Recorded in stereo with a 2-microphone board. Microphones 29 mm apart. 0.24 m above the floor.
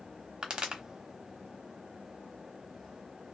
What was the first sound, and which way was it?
A pop, 30° right (ahead or behind).